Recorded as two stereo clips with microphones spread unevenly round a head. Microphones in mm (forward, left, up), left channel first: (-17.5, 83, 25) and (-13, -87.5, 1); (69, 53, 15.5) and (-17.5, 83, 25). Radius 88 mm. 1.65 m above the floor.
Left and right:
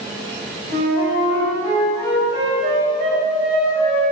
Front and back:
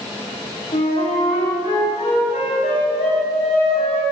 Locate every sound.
0.7 s a flute: 25° right, 6 m